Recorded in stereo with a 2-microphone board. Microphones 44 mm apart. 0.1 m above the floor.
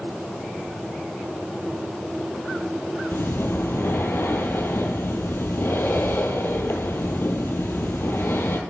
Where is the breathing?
65° left (ahead or behind), 1.0 m.